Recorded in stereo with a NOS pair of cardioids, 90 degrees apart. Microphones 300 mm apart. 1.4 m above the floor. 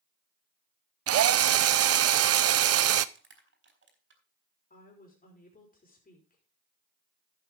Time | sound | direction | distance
1.1 | a drill | 50° right | 0.7 m
3.1 | crushing | 40° right | 4 m
4.7 | a woman speaking | 25° left | 5 m